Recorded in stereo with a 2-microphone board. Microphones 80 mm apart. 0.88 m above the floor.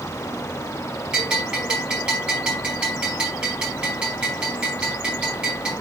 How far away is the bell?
About 4.5 m.